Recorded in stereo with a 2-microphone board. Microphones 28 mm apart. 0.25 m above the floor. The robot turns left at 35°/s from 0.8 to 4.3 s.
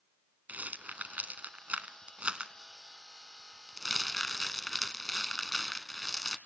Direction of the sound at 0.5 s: 70° right (ahead or behind).